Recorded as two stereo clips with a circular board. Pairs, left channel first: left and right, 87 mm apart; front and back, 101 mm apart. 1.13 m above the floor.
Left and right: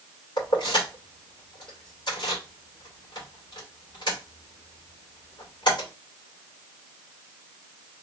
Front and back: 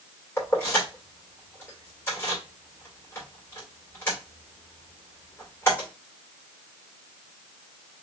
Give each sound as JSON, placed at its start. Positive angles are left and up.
{"t": 0.4, "sound": "keys jangling", "azimuth_deg": 65, "distance_m": 2.5}